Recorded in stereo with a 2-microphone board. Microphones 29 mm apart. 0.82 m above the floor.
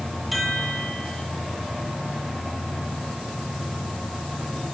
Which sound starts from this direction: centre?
A chime, at 0.3 s.